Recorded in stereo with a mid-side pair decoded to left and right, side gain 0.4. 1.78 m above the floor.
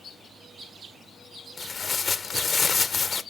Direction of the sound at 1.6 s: 45° left.